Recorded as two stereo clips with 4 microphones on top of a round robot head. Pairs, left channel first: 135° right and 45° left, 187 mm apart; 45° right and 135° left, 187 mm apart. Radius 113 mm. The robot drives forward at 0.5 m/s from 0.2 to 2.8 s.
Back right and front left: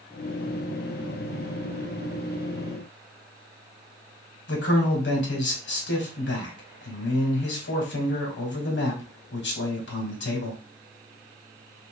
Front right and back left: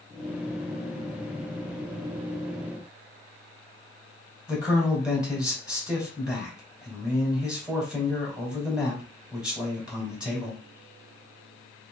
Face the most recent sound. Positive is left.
turn(degrees=-140)